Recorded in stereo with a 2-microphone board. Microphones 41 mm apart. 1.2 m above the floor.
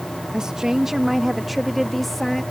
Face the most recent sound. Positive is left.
turn(degrees=5)  # may be behind; listen again after turning